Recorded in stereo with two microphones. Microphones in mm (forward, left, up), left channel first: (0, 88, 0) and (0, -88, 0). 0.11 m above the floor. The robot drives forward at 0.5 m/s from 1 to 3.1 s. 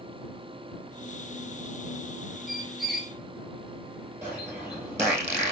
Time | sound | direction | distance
2.5 | a squeak | centre (ahead or behind) | 0.7 m
4.2 | a bird | 15° right (ahead or behind) | 2.5 m